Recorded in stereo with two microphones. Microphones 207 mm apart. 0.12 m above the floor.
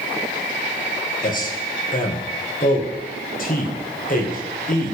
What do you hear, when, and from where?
1.2 s a man speaking: 40° left (ahead or behind), 3 m